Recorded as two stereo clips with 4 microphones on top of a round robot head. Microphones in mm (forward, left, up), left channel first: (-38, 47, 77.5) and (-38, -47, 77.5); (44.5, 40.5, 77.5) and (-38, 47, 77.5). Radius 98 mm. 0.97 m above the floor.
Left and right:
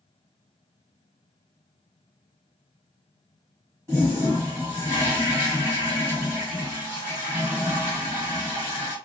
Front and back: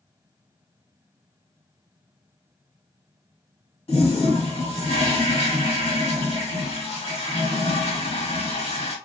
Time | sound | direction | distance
3.9 | a toilet flushing | 20° right | 1.6 m